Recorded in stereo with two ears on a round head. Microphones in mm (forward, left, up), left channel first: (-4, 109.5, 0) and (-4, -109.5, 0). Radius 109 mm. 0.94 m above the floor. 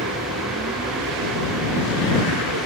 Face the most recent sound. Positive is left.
turn(degrees=-55)  # may be behind; listen again after turning